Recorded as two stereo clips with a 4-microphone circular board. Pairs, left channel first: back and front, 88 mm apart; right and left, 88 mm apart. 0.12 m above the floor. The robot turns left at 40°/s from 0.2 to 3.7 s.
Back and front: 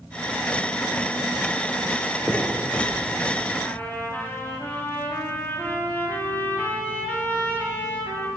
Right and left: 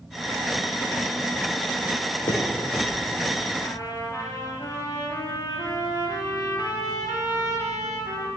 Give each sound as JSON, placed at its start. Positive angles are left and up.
{"t": 2.3, "sound": "a finger snap", "azimuth_deg": -85, "distance_m": 3.0}
{"t": 3.6, "sound": "a trumpet", "azimuth_deg": -115, "distance_m": 3.5}